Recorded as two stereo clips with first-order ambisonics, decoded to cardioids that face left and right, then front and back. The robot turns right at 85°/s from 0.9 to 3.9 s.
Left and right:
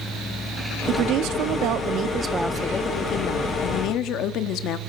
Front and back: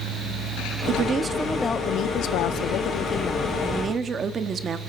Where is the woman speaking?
135° right, 0.8 m; by 4.8 s 120° left, 0.8 m.